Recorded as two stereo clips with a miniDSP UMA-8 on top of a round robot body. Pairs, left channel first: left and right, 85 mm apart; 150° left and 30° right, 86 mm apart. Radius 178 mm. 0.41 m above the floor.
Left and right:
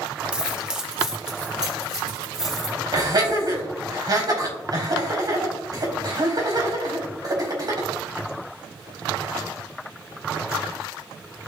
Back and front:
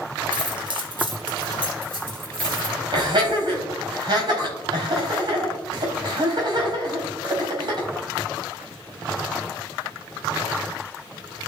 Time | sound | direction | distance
0.3 | keys jangling | 10° right | 1.0 m
2.9 | laughter | 55° right | 4.5 m